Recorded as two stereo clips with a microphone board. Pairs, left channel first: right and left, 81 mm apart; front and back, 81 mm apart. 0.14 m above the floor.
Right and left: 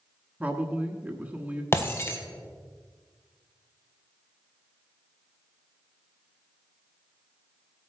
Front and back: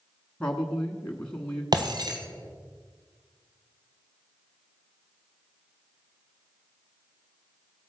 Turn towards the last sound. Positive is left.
turn(degrees=-150)